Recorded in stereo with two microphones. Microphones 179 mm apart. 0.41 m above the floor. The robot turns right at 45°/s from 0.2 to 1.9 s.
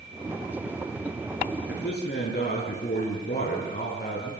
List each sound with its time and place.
1.7 s a man speaking: 75° left (ahead or behind), 8 m; by 4.3 s 65° left (ahead or behind), 8 m